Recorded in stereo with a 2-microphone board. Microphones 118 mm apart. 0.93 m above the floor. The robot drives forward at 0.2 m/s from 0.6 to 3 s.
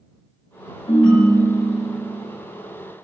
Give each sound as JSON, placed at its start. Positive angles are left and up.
{"t": 0.9, "sound": "a ringtone", "side_deg": 50, "distance_m": 1.6}